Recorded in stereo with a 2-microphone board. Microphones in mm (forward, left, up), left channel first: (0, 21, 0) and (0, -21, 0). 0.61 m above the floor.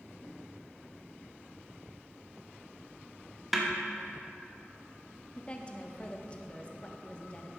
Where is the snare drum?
Centre (ahead or behind), 1.1 m.